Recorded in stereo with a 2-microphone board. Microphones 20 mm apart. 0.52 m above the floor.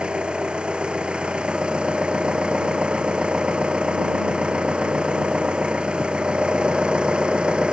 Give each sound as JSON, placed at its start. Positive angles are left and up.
{"t": 0.0, "sound": "an engine running", "side_deg": -75}